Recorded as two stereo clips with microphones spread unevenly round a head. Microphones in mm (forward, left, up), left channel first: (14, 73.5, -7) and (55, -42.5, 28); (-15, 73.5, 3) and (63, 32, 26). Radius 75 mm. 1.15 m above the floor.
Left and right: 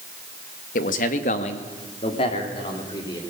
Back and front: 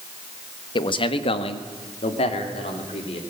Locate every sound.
0.8 s a man speaking: 125° left, 1.4 m; by 3.2 s 175° left, 3 m